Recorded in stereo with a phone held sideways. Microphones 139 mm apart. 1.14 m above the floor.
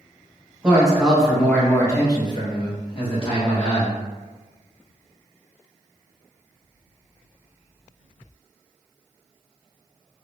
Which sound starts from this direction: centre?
A man speaking, at 0.6 s.